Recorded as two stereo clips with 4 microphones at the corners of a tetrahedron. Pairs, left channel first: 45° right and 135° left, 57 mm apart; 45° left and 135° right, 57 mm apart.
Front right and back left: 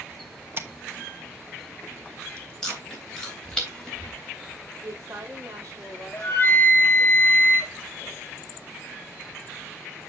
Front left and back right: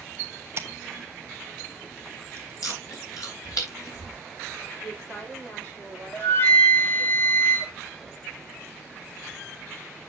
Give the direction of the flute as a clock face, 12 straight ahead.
12 o'clock.